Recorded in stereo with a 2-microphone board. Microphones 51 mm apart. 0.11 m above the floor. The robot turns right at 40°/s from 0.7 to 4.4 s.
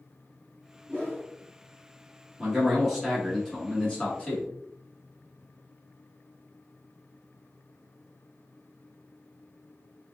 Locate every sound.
0.9 s a whoosh: 10° right (ahead or behind), 1.9 m; by 1.3 s 5° left (ahead or behind), 1.9 m
2.4 s a man speaking: centre (ahead or behind), 1.1 m; by 4.5 s 20° left (ahead or behind), 1.1 m